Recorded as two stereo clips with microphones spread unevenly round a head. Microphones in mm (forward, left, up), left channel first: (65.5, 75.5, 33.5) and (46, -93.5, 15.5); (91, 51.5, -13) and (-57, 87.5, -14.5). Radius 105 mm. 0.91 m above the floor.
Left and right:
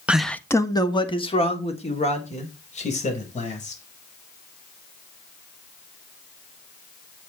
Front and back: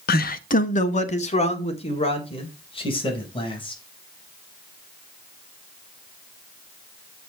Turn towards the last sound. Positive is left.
turn(degrees=40)